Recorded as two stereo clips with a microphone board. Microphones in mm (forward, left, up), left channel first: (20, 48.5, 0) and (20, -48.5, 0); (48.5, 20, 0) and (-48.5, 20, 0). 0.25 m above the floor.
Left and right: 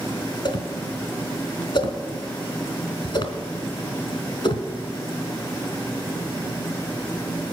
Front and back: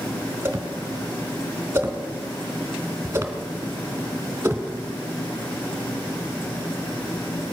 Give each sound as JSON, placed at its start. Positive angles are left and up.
{"t": 0.5, "sound": "a whoosh", "azimuth_deg": 115, "distance_m": 1.3}